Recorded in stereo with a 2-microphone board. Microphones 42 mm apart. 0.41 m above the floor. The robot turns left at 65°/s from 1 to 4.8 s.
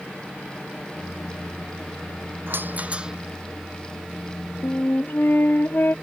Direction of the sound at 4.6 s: 60° left (ahead or behind).